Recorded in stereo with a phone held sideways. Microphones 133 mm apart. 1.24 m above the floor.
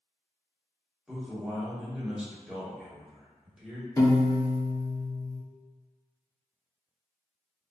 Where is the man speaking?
5° right (ahead or behind), 0.9 m.